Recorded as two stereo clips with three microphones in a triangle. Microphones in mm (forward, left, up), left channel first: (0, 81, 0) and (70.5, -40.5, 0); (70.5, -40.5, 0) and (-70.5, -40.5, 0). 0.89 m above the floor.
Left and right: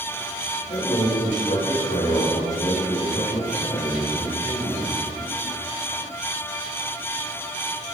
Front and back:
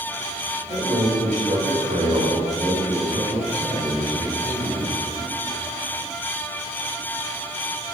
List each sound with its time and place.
0.7 s a man speaking: 140° left, 4 m; by 5.0 s 165° left, 5.5 m